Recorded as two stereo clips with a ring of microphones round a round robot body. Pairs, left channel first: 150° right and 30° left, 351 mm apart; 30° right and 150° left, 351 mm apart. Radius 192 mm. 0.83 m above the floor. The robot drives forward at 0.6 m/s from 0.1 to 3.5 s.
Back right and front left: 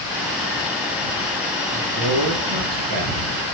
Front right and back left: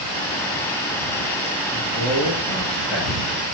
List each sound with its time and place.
1.7 s a man speaking: 55° left, 6.5 m; by 3.2 s 60° left, 6 m